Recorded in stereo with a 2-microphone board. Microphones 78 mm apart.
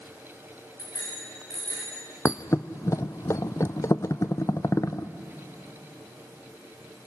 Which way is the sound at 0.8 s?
55° left (ahead or behind).